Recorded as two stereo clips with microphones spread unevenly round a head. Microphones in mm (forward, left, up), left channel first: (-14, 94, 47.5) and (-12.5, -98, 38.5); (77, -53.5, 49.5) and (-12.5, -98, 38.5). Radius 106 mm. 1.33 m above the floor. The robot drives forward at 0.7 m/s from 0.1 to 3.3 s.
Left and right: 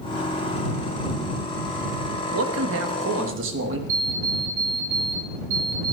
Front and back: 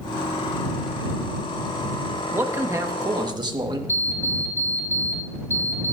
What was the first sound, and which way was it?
A man speaking, 85° right.